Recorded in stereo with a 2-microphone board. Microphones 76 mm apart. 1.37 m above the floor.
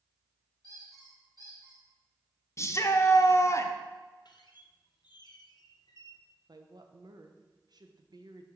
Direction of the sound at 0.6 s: 50° right (ahead or behind).